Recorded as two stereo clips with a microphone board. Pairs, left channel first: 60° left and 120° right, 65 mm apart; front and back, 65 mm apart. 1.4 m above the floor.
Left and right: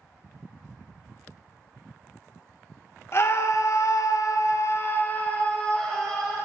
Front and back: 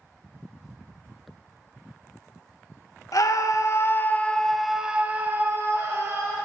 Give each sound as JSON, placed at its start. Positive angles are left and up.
{"t": 3.1, "sound": "a scream", "azimuth_deg": 15, "distance_m": 1.0}